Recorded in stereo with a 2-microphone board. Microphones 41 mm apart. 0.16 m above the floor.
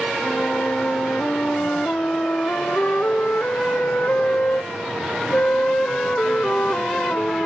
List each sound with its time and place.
0.2 s a flute: 45° left (ahead or behind)